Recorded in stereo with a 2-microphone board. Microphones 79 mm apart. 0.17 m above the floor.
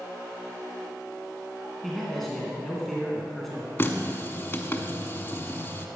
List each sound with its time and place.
1.8 s a man speaking: centre (ahead or behind), 2.0 m
3.8 s a running tap: 30° left (ahead or behind), 0.8 m